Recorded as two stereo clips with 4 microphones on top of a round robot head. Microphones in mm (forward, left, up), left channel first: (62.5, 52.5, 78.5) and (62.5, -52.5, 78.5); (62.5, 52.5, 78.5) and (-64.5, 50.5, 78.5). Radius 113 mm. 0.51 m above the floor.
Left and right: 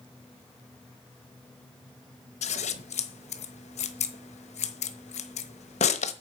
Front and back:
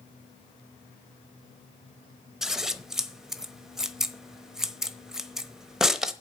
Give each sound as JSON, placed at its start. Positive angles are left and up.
{"t": 2.4, "sound": "scissors", "azimuth_deg": 95, "distance_m": 1.0}